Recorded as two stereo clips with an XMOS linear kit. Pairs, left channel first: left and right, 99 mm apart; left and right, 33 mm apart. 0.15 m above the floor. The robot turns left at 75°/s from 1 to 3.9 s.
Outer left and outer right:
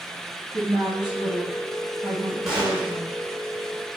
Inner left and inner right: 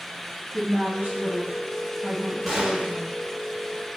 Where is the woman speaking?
100° right, 1.8 m; by 3.1 s 100° left, 1.8 m.